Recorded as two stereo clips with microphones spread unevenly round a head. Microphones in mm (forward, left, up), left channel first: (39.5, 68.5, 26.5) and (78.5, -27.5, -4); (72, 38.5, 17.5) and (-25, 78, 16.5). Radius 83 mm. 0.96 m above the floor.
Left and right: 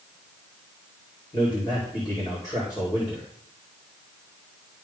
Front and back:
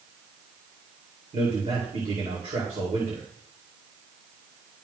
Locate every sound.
1.3 s a man speaking: straight behind, 2.5 m